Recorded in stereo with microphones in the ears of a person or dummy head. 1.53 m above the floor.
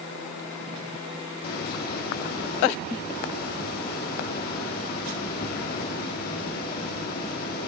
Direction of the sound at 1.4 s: 60° left (ahead or behind).